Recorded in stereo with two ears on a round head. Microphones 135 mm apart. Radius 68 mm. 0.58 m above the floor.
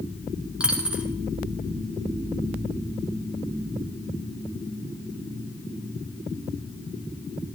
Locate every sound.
0.6 s a dropped coin: 5° right (ahead or behind), 2.5 m